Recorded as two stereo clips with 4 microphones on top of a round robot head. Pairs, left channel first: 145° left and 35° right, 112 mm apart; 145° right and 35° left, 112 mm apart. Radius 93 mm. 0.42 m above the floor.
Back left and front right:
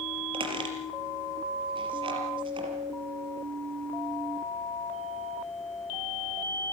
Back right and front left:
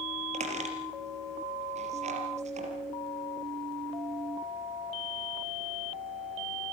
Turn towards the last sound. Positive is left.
turn(degrees=15)